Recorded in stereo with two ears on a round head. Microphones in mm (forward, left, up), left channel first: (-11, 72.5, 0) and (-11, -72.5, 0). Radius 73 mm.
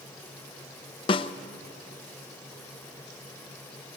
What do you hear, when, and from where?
1.1 s a snare drum: 30° left (ahead or behind), 0.8 m